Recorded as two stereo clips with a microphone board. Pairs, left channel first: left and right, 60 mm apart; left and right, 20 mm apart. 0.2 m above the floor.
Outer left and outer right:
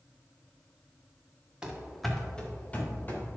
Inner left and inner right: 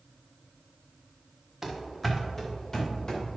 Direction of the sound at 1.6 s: 15° right (ahead or behind).